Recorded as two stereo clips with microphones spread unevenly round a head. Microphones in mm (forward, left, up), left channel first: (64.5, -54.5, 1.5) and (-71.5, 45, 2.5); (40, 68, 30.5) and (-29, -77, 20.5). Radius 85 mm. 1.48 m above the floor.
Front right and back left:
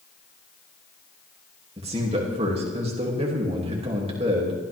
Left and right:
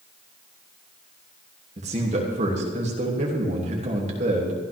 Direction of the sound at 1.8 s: 160° right.